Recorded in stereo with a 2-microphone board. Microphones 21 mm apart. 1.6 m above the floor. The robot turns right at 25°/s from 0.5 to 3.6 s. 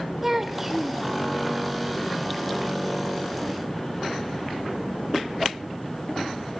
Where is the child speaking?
10° right (ahead or behind), 0.5 m; by 1.0 s 5° right (ahead or behind), 0.5 m.